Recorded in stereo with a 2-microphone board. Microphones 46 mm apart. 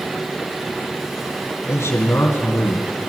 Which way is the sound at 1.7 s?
65° left (ahead or behind).